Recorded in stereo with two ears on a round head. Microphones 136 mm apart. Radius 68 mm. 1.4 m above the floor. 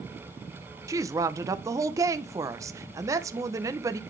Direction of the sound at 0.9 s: 20° right (ahead or behind).